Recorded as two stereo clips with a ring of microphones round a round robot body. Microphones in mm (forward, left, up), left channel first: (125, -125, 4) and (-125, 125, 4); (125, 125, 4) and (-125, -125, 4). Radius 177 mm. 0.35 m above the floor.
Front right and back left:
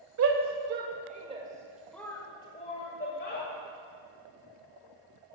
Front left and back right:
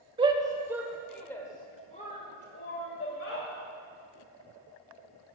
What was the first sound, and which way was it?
A shout, 155° left.